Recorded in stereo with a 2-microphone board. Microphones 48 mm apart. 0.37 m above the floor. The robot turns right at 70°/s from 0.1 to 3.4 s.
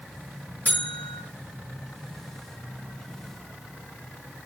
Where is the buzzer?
140° left, 6.5 m; by 1.2 s straight behind, 6.5 m.